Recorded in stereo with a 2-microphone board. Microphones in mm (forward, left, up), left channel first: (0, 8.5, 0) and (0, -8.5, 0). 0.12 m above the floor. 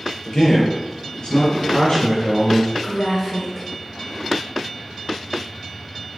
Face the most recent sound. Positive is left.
turn(degrees=20)  # may be behind; listen again after turning